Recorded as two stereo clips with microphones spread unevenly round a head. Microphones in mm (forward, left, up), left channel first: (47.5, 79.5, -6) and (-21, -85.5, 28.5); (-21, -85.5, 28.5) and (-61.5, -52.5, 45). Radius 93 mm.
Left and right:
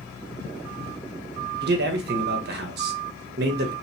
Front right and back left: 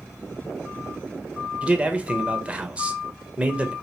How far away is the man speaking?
About 1.0 m.